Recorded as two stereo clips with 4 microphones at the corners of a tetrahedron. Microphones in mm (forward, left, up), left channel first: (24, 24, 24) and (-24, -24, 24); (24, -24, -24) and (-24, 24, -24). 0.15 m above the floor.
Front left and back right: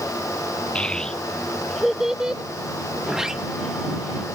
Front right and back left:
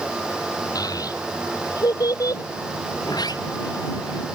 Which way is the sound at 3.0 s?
55° right.